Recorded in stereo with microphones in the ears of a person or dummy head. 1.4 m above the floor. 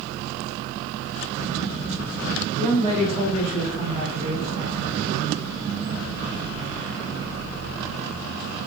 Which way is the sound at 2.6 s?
30° right (ahead or behind).